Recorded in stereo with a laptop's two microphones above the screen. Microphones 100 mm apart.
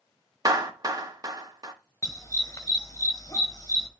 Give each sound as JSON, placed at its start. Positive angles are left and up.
{"t": 0.5, "sound": "a clap", "side_deg": -35, "distance_m": 1.3}
{"t": 2.0, "sound": "a dog barking", "side_deg": 35, "distance_m": 1.3}